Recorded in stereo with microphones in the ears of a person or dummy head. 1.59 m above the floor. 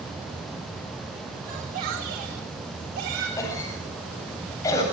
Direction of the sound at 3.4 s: 20° left (ahead or behind).